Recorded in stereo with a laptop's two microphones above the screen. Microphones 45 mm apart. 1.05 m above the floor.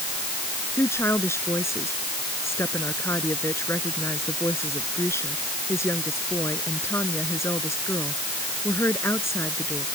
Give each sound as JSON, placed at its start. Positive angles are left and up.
{"t": 0.7, "sound": "a woman speaking", "side_deg": 85}